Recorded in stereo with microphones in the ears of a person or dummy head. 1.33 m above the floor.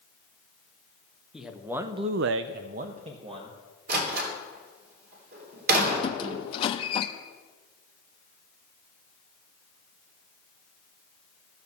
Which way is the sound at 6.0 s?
35° left (ahead or behind).